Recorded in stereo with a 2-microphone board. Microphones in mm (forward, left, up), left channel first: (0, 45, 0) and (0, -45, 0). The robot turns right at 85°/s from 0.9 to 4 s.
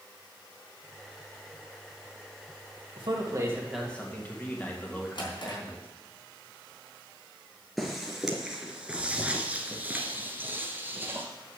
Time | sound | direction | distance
3.0 | a man speaking | 70° right | 2.5 m
5.2 | a drawer | 65° left (ahead or behind) | 4 m
7.8 | footsteps | centre (ahead or behind) | 2 m